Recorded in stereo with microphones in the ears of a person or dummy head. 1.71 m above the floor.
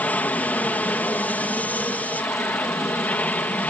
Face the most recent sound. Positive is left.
turn(degrees=10)  # may be behind; listen again after turning